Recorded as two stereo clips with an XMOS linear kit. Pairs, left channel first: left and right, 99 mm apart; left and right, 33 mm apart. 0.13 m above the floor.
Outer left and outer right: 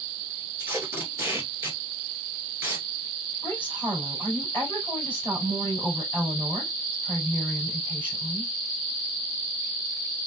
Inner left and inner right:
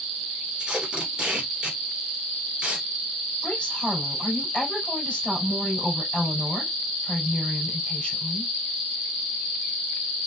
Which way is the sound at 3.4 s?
20° left (ahead or behind).